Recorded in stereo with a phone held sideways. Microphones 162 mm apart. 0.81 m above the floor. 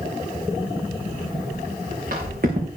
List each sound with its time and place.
1.1 s footsteps: 70° right (ahead or behind), 6 m; by 2.7 s 65° right (ahead or behind), 4.5 m